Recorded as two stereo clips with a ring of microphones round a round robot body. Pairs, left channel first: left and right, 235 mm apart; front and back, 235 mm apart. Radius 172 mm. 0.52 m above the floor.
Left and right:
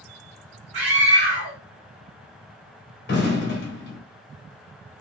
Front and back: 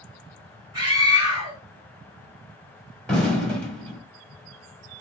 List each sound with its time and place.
0.7 s a scream: 110° right, 1.5 m
3.1 s an explosion: 85° left, 1.6 m